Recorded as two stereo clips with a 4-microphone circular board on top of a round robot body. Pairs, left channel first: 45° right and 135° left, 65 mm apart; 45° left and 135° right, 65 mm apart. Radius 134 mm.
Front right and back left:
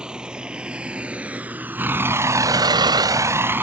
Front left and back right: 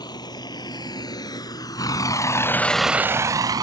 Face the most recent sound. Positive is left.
turn(degrees=-165)